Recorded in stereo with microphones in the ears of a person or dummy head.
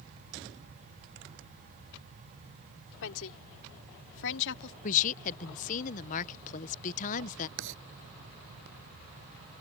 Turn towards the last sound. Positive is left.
turn(degrees=-65)  # may be behind; listen again after turning